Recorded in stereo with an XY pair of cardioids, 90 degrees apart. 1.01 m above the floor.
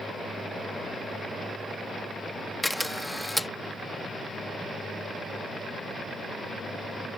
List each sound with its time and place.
2.6 s a camera shutter: 5° left